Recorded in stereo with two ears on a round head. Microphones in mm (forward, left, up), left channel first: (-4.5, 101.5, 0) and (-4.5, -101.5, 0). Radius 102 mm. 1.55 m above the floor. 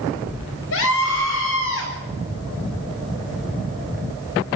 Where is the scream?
65° left (ahead or behind), 8.5 m.